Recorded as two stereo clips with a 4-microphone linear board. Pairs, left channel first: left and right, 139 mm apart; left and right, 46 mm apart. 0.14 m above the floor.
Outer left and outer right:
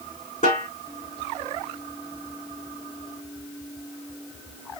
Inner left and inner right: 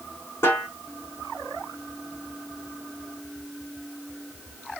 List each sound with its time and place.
0.4 s a snare drum: 65° left (ahead or behind), 3.5 m